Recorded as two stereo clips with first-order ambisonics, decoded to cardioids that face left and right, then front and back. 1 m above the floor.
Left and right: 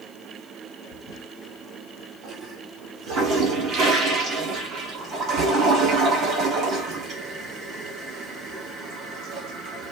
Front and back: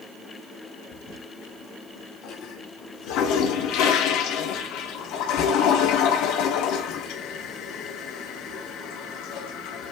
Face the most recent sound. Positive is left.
turn(degrees=-30)